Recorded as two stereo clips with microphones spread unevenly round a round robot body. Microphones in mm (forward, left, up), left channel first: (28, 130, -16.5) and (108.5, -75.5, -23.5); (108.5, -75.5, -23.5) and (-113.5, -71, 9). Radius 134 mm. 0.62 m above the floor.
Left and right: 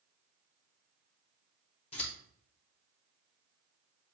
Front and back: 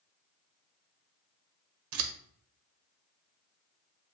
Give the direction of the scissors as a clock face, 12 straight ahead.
6 o'clock.